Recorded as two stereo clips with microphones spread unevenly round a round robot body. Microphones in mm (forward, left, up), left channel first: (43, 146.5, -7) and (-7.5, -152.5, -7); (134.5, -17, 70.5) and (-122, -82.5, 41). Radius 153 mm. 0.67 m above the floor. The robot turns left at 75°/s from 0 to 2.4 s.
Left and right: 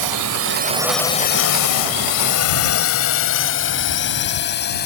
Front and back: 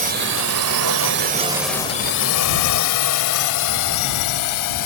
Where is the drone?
110° right; by 4.9 s 20° left.